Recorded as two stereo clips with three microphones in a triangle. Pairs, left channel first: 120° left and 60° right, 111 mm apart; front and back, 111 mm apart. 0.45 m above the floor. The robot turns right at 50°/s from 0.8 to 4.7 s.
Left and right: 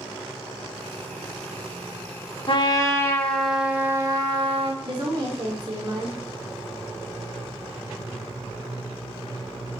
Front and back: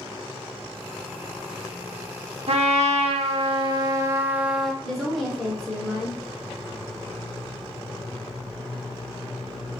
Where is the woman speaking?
85° right, 0.9 m.